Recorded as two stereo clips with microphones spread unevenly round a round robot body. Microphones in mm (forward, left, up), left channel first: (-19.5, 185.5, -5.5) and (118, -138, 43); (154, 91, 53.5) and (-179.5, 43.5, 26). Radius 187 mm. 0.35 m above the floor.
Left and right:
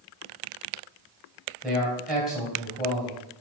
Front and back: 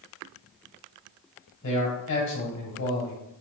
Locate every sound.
1.6 s a man speaking: 30° left, 2.5 m